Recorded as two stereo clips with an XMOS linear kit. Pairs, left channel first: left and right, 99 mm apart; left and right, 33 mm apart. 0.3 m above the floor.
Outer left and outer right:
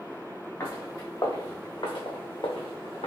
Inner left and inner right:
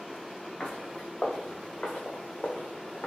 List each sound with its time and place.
0.6 s footsteps: 25° left (ahead or behind), 1.8 m; by 3.1 s 75° left (ahead or behind), 0.9 m